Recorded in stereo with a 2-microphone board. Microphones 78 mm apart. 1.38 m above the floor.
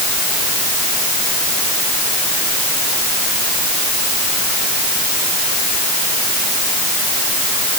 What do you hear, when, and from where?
Only background noise.